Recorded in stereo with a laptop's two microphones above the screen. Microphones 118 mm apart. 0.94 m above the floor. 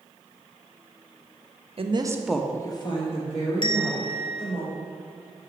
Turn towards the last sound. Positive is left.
turn(degrees=40)  # may be behind; listen again after turning